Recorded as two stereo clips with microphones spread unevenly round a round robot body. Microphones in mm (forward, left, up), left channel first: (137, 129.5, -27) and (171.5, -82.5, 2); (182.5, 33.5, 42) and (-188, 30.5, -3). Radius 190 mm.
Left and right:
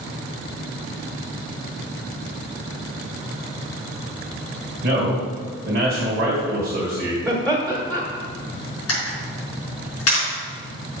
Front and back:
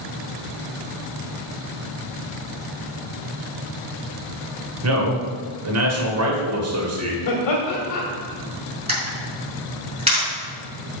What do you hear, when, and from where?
4.8 s a man speaking: 145° right, 2 m
7.2 s laughter: 20° left, 2 m
8.9 s a camera shutter: 105° left, 4.5 m